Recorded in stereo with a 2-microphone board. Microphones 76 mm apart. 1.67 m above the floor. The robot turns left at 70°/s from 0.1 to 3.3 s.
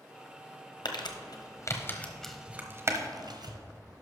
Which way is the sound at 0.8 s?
80° left.